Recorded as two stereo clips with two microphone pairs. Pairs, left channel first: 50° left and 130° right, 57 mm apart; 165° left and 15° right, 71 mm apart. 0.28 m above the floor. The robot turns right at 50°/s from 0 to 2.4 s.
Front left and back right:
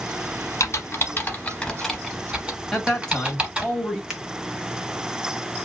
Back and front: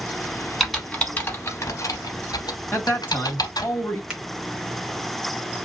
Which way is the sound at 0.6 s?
70° left.